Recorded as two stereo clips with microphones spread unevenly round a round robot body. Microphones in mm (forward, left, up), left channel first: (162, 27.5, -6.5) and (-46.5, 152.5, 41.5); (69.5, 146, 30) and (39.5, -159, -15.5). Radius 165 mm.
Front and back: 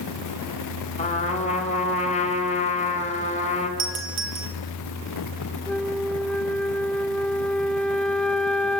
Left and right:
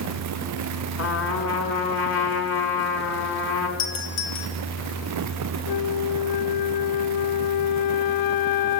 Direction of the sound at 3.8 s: 135° left.